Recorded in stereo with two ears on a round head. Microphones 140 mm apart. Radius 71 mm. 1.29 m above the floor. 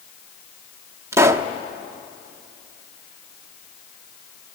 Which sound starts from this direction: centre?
A pop, at 1.1 s.